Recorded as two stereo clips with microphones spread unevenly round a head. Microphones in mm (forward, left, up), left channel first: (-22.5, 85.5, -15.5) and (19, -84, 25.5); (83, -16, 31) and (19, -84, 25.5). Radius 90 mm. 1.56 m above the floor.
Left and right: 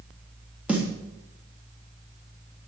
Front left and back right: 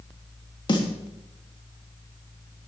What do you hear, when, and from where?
0.7 s a snare drum: 10° left, 3.5 m